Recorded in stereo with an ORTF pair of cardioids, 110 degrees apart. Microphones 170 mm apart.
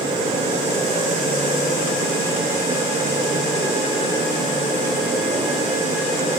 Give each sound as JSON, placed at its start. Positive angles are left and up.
{"t": 0.0, "sound": "a fan", "azimuth_deg": -30, "distance_m": 2.0}